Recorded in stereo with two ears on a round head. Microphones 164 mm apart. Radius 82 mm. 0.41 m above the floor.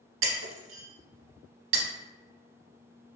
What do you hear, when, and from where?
0.2 s breaking glass: 80° right, 0.7 m